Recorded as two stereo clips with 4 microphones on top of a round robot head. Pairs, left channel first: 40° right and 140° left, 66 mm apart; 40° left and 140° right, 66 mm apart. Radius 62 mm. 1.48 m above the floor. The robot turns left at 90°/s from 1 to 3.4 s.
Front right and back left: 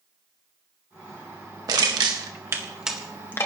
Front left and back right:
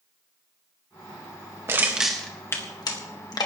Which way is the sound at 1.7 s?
170° left.